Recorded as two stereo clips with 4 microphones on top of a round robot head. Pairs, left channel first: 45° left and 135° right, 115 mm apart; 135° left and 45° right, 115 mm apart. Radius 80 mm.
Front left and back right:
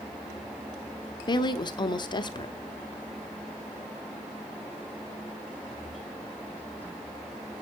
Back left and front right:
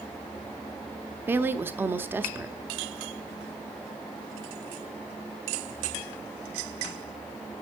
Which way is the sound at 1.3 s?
20° left.